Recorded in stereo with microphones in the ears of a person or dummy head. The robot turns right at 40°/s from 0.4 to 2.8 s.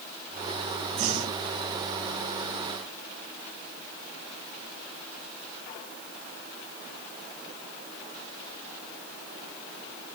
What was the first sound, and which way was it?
Breathing, 35° right (ahead or behind).